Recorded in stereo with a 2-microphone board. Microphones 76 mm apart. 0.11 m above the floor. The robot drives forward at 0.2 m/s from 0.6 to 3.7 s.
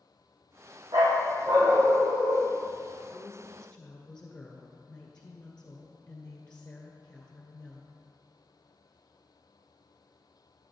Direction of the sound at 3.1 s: 15° left (ahead or behind).